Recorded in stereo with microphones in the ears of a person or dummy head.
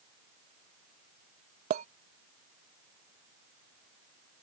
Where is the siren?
I don't hear a siren.